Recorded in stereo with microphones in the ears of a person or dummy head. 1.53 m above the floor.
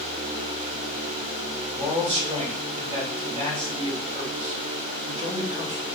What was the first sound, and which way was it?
A man speaking, 35° right (ahead or behind).